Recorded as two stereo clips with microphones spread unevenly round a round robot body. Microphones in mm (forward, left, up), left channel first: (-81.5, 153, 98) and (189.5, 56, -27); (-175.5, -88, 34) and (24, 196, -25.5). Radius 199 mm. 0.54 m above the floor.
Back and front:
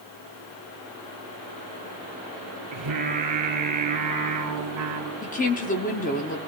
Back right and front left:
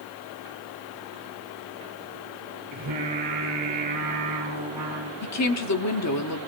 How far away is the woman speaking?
About 1.2 m.